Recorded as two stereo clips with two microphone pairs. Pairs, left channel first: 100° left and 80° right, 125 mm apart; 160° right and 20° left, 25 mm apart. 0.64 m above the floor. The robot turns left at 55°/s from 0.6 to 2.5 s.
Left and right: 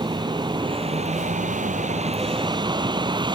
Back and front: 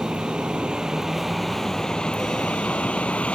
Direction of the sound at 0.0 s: 30° right.